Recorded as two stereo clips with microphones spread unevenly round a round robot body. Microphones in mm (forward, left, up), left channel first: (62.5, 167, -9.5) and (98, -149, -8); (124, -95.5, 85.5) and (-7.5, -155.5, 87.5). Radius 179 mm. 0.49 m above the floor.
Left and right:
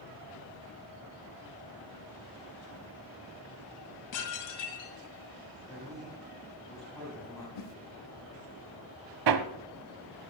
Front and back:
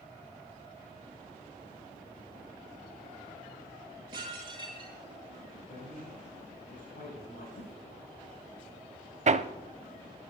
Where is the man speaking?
15° left, 4 m.